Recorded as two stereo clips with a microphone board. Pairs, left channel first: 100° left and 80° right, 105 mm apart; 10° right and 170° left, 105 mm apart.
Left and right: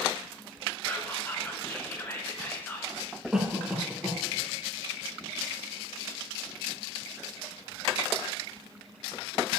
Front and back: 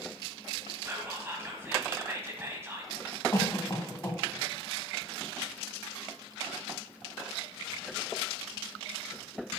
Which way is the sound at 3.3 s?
Straight ahead.